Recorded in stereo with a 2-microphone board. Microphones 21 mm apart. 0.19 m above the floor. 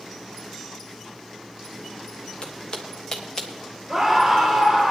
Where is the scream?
15° right (ahead or behind), 4.5 m.